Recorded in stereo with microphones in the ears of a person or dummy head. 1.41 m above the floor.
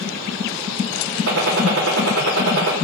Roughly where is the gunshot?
Right.